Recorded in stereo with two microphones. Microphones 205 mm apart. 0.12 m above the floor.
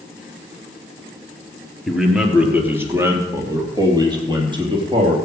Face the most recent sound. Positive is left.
turn(degrees=-25)  # may be behind; listen again after turning